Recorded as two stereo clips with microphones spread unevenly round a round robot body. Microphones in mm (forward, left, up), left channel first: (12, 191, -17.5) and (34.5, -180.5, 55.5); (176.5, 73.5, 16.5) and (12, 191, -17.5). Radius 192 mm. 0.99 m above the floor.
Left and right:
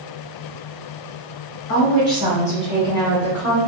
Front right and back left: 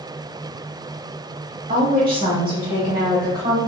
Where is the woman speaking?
125° left, 1.0 m; by 3.6 s straight behind, 1.4 m.